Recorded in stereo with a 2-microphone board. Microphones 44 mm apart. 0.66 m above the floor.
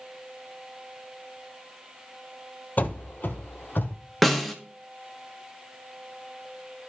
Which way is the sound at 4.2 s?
Centre (ahead or behind).